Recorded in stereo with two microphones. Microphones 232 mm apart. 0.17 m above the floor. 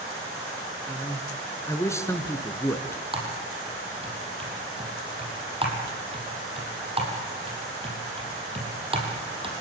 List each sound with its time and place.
0.9 s a man speaking: 10° left (ahead or behind), 2 m
3.1 s typing on a keyboard: 25° right (ahead or behind), 5.5 m